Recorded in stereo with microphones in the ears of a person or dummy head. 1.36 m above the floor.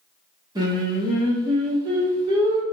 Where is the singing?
15° right (ahead or behind), 0.8 m.